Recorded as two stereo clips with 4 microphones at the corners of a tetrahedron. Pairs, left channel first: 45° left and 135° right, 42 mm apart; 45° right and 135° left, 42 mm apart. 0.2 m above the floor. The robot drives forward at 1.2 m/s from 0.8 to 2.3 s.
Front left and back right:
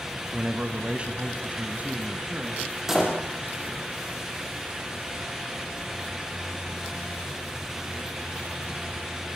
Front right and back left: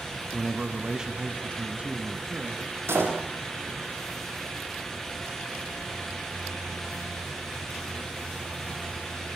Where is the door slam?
145° left, 5.5 m.